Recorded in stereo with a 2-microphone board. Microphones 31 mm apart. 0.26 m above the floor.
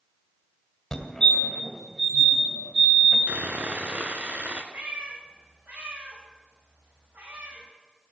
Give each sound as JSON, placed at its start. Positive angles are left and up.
{"t": 0.9, "sound": "a fire alarm", "side_deg": 20, "distance_m": 1.9}
{"t": 3.3, "sound": "sawing", "side_deg": -65, "distance_m": 1.3}
{"t": 4.7, "sound": "a cat meowing", "side_deg": -80, "distance_m": 6.0}